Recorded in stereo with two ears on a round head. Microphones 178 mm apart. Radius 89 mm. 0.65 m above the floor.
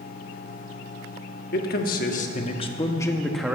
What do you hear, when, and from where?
1.5 s a man speaking: 50° left (ahead or behind), 1.4 m; by 3.6 s 5° right (ahead or behind), 0.9 m